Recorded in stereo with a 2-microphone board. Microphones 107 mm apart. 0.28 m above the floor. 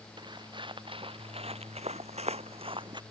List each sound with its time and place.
0.2 s footsteps: 45° right (ahead or behind)